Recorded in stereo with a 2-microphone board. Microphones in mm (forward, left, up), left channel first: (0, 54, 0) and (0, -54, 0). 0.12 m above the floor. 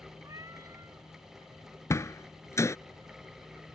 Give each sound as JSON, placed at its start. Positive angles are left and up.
{"t": 0.2, "sound": "a cat meowing", "side_deg": -30}
{"t": 1.9, "sound": "a door slam", "side_deg": 25}